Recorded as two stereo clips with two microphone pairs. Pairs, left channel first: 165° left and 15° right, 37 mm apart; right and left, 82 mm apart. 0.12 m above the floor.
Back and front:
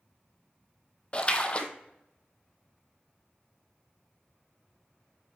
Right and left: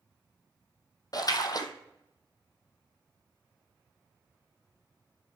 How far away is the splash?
About 1.0 m.